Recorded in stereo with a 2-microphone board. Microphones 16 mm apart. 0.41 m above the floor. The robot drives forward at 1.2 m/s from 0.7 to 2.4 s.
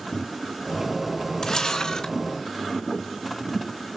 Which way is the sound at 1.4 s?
35° left (ahead or behind).